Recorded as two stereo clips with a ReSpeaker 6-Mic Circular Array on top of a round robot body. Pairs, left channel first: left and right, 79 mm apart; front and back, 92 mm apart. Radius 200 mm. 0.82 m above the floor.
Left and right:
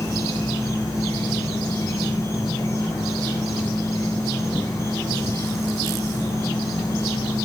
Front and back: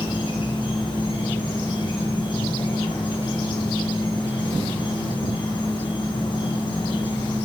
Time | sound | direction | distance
0.0 | an insect | 35° left | 3 m